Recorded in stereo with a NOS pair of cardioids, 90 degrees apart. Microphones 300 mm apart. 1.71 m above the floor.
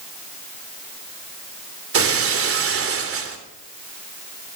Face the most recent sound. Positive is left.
turn(degrees=-50)